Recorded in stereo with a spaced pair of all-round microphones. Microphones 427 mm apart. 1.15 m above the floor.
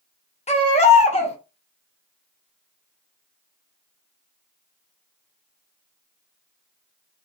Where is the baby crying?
15° left (ahead or behind), 0.7 m.